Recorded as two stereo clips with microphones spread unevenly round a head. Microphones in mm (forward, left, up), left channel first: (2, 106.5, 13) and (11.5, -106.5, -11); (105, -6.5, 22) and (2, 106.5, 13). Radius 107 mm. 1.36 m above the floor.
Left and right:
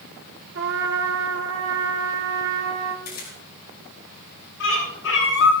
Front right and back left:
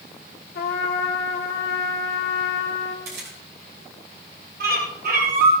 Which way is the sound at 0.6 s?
55° right.